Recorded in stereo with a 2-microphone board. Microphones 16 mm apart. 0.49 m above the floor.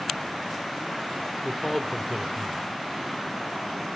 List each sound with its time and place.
1.4 s a man speaking: 15° left (ahead or behind), 1.0 m; by 2.6 s 20° left (ahead or behind), 1.7 m